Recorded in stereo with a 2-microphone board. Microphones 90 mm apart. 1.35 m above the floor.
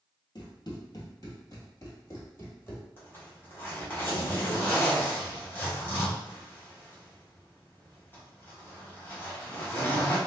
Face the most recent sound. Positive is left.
turn(degrees=25)  # may be behind; listen again after turning